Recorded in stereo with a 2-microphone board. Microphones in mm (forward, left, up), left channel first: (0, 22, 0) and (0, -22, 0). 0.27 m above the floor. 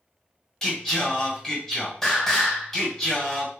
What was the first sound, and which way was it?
Singing, 10° left (ahead or behind).